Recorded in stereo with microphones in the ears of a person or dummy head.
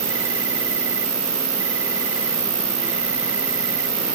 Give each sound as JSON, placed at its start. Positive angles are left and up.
{"t": 0.0, "sound": "an insect", "side_deg": -15}